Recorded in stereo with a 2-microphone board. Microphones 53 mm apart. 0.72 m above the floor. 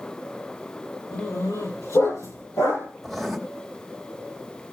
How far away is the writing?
About 1.6 m.